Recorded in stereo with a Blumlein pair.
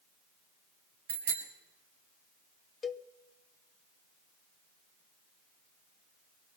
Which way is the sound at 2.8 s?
15° left.